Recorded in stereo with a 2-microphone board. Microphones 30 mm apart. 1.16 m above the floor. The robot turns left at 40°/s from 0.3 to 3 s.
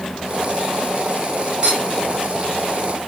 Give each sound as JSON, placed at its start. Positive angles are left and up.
{"t": 1.6, "sound": "a clink", "side_deg": -40, "distance_m": 1.5}